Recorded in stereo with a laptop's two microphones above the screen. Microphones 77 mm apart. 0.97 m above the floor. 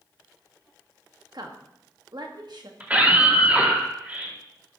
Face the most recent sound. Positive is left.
turn(degrees=-20)  # may be behind; listen again after turning